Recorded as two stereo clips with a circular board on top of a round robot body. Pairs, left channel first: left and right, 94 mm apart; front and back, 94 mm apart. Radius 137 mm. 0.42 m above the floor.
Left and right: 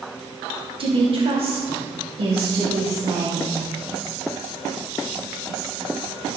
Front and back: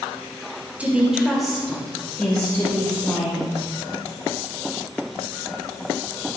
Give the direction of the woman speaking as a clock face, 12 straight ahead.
4 o'clock.